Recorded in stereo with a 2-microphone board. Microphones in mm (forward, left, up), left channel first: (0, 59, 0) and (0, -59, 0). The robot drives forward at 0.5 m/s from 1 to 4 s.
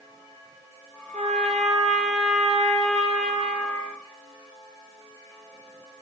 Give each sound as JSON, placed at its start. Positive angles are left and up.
{"t": 1.1, "sound": "a trumpet", "side_deg": -75, "distance_m": 3.0}